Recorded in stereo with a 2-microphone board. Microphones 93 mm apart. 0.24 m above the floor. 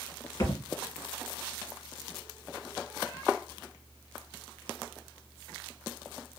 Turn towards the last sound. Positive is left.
turn(degrees=45)  # may be behind; listen again after turning